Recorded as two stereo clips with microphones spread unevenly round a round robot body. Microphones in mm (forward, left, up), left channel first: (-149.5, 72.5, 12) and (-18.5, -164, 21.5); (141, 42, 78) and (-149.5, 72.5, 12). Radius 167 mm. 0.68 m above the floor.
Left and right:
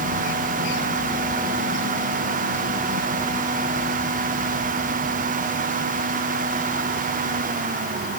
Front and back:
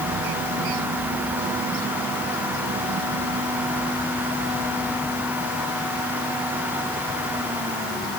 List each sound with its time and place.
Only background noise.